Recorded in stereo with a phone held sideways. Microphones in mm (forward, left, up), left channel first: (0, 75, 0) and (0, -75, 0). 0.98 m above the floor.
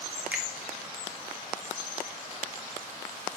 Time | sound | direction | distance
0.3 | a finger snap | 10° right (ahead or behind) | 1.7 m